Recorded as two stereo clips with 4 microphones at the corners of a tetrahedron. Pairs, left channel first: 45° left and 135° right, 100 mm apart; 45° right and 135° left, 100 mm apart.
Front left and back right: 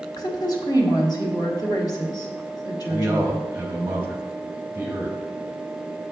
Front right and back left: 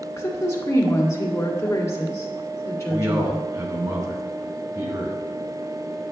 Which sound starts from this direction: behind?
A man speaking, at 2.9 s.